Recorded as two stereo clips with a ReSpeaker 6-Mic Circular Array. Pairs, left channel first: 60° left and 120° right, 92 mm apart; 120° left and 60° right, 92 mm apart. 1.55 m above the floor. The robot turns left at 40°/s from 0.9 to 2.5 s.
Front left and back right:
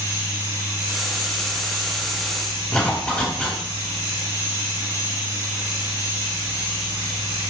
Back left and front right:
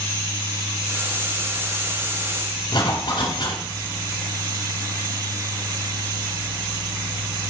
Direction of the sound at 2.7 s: 140° left.